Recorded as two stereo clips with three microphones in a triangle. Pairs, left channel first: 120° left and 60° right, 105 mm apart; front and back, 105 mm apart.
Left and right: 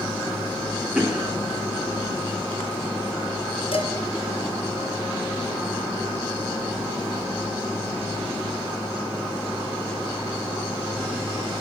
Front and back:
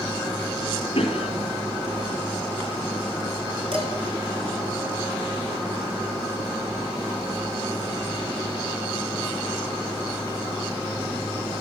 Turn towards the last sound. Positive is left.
turn(degrees=150)